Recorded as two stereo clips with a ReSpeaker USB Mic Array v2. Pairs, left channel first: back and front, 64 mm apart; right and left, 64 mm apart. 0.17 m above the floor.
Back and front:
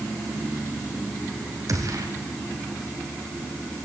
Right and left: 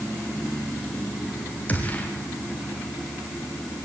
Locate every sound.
1.7 s a gunshot: 25° right, 3.5 m